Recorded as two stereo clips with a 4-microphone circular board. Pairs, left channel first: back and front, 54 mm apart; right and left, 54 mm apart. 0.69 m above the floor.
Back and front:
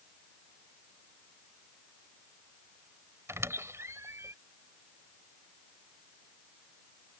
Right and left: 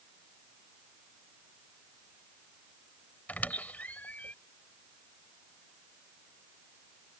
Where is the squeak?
30° right.